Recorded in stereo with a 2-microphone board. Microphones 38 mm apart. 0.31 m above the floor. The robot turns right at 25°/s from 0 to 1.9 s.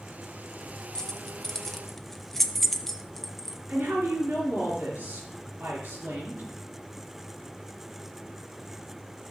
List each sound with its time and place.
0.9 s keys jangling: 15° left (ahead or behind), 0.6 m; by 3.6 s 5° left (ahead or behind), 0.6 m
3.7 s a woman speaking: 55° right (ahead or behind), 3.5 m